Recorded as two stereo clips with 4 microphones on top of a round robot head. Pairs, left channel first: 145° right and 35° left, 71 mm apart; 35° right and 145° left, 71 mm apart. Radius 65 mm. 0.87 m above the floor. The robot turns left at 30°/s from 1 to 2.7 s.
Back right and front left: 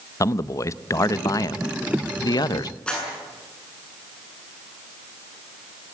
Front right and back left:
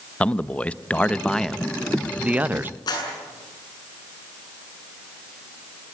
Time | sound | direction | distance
0.2 | a man speaking | 105° right | 0.7 m
2.9 | a clap | 65° right | 8.5 m